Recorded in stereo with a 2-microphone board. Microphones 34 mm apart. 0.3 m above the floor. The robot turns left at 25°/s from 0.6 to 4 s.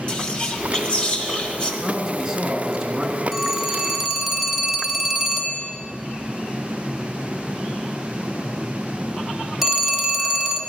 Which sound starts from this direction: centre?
A phone ringing, at 3.3 s.